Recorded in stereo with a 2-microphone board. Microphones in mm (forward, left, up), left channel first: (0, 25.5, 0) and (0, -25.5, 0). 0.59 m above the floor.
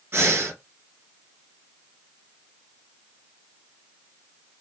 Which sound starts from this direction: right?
Breathing, at 0.1 s.